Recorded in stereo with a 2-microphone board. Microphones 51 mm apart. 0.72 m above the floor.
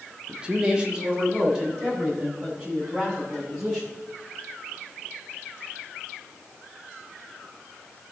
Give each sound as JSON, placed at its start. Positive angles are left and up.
{"t": 0.3, "sound": "a man speaking", "side_deg": -20, "distance_m": 1.3}